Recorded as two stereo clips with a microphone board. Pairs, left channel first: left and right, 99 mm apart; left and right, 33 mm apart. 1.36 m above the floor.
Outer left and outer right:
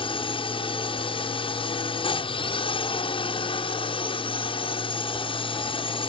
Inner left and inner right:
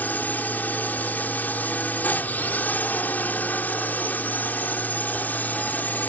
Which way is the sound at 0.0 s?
60° left (ahead or behind).